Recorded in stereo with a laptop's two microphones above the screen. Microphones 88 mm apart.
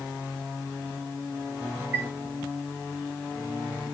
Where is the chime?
25° right (ahead or behind), 1.3 m.